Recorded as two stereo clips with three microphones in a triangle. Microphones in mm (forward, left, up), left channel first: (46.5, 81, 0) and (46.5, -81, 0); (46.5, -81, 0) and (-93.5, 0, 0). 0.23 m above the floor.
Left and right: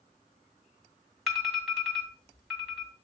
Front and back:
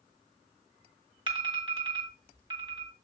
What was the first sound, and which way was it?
An alarm, 175° right.